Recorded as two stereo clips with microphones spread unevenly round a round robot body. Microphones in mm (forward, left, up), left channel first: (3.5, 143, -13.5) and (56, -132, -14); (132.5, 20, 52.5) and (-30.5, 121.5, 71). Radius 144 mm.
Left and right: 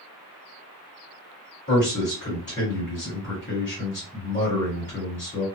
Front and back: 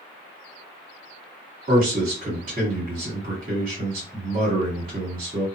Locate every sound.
1.7 s a man speaking: 145° left, 1.7 m